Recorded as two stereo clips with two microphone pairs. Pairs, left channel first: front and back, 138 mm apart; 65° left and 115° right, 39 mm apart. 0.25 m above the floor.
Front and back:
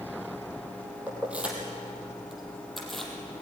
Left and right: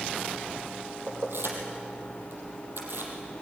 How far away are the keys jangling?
About 5 m.